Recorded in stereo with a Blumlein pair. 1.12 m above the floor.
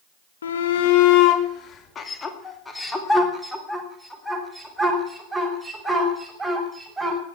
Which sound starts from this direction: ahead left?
A shout, at 0.4 s.